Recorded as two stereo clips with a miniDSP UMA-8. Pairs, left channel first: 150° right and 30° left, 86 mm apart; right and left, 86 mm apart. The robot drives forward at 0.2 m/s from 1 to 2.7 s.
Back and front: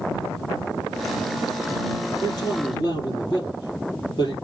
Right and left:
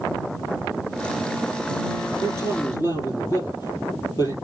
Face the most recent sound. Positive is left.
turn(degrees=-130)